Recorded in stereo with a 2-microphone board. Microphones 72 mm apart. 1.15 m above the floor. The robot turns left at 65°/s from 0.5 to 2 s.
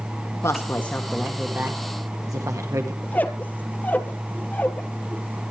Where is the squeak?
25° left (ahead or behind), 1.3 m.